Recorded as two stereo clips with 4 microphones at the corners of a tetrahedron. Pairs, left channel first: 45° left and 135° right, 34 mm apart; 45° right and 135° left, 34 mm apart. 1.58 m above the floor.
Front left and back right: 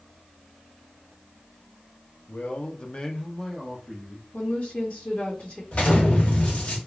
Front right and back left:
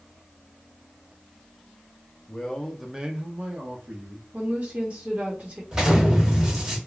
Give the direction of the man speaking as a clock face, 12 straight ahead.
12 o'clock.